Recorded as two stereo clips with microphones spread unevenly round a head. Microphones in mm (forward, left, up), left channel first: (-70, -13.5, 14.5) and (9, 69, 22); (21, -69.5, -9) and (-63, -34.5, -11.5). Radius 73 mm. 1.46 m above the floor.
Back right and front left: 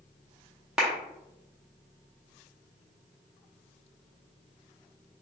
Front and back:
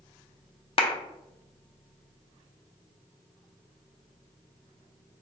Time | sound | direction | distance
0.8 | a clap | 35° right | 0.6 m